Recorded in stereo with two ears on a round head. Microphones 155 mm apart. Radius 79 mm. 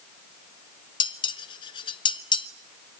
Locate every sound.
1.0 s dishes clattering: 30° left (ahead or behind), 1.2 m